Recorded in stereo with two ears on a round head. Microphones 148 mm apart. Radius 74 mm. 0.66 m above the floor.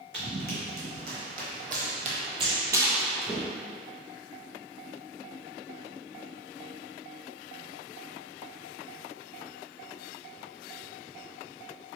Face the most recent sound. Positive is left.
turn(degrees=10)  # may be behind; listen again after turning